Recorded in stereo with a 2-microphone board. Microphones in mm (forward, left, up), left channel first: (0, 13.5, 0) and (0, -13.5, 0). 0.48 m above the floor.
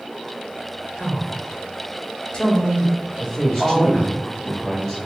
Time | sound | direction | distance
1.0 | a man speaking | 20° left (ahead or behind) | 1.6 m
3.2 | a man speaking | 5° left (ahead or behind) | 1.9 m